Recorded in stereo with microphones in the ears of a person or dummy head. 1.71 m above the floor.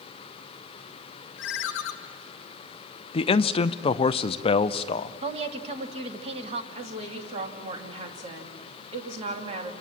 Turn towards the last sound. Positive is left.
turn(degrees=-35)  # may be behind; listen again after turning